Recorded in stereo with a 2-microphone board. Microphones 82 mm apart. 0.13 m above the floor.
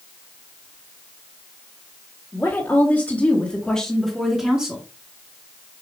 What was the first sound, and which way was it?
A woman speaking, 25° left (ahead or behind).